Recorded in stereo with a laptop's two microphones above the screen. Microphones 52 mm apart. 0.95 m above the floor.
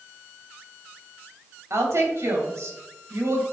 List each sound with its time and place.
1.7 s a woman speaking: 70° right (ahead or behind), 3 m